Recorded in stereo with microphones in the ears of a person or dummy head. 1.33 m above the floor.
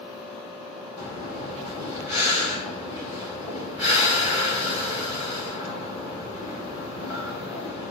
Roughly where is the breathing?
Centre.